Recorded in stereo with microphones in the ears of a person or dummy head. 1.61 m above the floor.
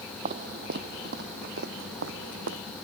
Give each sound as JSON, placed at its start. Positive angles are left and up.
{"t": 0.2, "sound": "footsteps", "side_deg": -40}